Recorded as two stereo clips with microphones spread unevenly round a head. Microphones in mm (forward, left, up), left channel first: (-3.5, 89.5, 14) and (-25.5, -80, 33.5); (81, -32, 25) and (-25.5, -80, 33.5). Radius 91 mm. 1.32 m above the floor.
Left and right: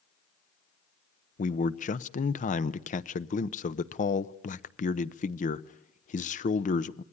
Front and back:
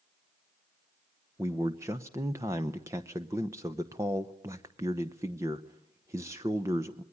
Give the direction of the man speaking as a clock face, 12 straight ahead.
8 o'clock.